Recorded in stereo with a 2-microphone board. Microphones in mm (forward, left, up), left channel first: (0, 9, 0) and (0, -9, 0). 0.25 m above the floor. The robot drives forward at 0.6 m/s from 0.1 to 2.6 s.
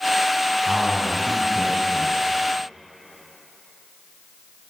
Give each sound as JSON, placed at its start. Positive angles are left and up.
{"t": 0.7, "sound": "a man speaking", "side_deg": -60, "distance_m": 2.0}